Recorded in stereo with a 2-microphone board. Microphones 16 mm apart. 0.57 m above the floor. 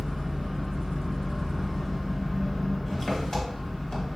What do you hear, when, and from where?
0.0 s an engine running: 30° left (ahead or behind), 1.5 m